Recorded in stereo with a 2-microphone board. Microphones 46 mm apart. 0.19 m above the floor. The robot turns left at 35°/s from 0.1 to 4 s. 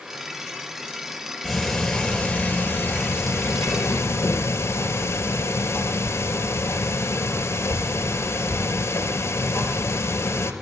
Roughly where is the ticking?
Behind.